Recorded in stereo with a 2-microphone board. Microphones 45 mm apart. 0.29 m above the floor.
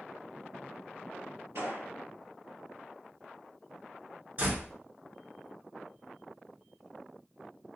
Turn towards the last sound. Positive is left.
turn(degrees=-40)  # may be behind; listen again after turning